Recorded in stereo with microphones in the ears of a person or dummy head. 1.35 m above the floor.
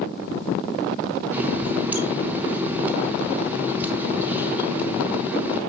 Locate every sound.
1.3 s a running tap: 10° right (ahead or behind), 0.7 m